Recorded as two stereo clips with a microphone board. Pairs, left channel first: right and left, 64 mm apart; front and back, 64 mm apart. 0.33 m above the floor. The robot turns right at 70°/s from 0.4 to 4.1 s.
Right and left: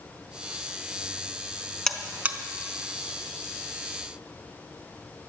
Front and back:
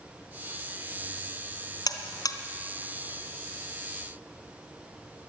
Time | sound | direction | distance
1.9 | a buzzer | 10° right | 1.2 m